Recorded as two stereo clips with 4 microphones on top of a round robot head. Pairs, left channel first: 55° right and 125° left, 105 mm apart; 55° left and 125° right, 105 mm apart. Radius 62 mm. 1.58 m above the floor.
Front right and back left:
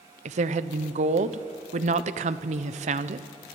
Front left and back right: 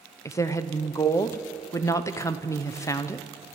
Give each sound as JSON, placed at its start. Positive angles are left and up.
{"t": 0.2, "sound": "a woman speaking", "azimuth_deg": 115, "distance_m": 1.0}